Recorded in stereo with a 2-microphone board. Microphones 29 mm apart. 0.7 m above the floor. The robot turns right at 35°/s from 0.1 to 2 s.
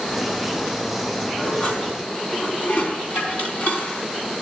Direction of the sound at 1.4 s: 40° left (ahead or behind).